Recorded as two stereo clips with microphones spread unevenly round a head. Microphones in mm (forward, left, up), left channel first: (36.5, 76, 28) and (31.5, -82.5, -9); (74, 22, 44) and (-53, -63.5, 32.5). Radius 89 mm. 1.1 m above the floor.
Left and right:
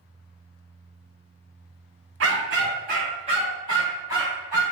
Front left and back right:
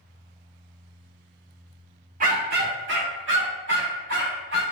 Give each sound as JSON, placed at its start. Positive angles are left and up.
{"t": 2.2, "sound": "a dog barking", "azimuth_deg": -110, "distance_m": 1.0}